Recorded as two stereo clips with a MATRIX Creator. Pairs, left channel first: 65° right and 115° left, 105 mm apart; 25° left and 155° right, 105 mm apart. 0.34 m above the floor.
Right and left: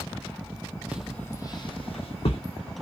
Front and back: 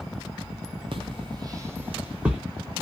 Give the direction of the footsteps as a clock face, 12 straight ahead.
6 o'clock.